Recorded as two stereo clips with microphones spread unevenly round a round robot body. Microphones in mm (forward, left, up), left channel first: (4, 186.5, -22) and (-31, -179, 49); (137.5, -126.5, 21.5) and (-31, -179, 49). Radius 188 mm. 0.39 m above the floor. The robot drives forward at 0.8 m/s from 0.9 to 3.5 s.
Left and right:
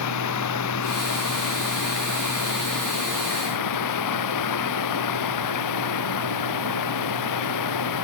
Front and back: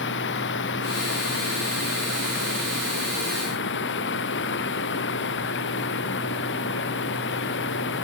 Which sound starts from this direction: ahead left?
Running water, at 0.0 s.